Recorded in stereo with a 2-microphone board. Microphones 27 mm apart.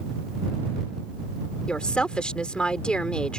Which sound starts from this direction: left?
A woman speaking, at 1.7 s.